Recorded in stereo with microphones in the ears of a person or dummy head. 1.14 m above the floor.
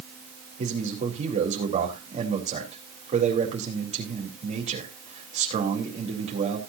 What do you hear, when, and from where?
0.6 s a man speaking: 35° right (ahead or behind), 4 m